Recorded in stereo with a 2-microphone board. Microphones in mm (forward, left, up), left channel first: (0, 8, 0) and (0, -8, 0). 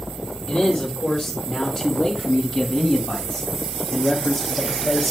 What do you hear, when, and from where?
0.5 s a man speaking: 60° left (ahead or behind), 3.5 m; by 5.1 s 25° left (ahead or behind), 1.8 m